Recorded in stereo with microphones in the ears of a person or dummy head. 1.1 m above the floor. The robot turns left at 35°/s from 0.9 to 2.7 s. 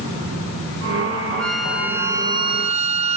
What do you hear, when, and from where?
1.4 s a flute: 5° left; by 3.2 s 40° right